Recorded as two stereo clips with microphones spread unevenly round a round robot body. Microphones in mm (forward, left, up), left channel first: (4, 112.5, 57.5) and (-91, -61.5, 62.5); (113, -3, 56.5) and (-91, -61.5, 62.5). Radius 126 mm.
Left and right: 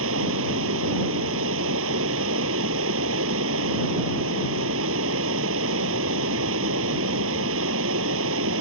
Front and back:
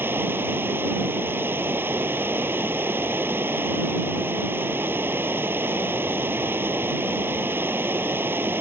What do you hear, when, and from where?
0.0 s running water: 85° right